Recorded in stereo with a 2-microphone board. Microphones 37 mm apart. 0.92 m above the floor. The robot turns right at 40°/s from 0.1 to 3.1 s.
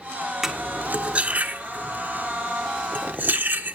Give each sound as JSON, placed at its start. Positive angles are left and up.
{"t": 0.4, "sound": "cutlery clinking", "side_deg": -10, "distance_m": 1.4}